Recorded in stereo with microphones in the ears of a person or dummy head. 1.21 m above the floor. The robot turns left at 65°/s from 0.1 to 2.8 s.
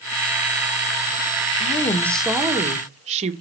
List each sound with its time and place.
1.6 s a woman speaking: 40° left, 1.1 m; by 3.3 s 40° right, 1.1 m